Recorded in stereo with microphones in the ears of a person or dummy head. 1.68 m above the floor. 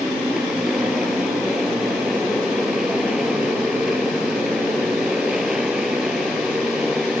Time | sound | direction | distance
0.0 | a motorcycle | centre (ahead or behind) | ?